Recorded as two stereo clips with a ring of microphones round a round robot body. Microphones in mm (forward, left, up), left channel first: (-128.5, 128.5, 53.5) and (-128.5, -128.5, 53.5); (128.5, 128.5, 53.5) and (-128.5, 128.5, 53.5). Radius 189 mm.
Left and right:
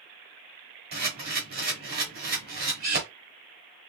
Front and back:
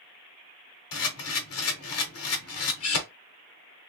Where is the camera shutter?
30° right, 1.0 m.